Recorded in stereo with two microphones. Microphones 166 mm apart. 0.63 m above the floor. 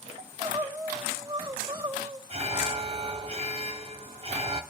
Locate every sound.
0.2 s crying: 30° right (ahead or behind), 2.5 m
2.3 s an alarm: 40° right (ahead or behind), 1.3 m